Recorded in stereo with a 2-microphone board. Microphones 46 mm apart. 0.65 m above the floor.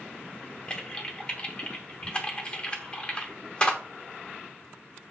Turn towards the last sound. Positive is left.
turn(degrees=20)  # may be behind; listen again after turning